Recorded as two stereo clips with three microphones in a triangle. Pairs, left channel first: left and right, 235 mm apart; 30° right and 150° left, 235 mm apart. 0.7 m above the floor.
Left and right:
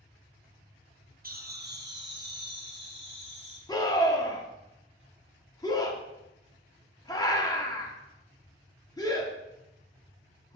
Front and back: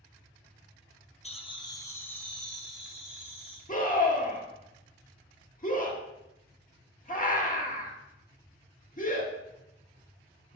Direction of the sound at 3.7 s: 15° left.